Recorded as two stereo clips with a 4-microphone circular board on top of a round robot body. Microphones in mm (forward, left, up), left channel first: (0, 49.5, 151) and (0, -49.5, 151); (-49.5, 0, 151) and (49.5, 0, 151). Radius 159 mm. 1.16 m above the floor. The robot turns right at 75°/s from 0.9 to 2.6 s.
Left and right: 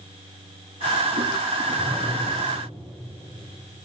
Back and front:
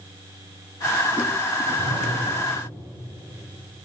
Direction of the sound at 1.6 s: 15° right.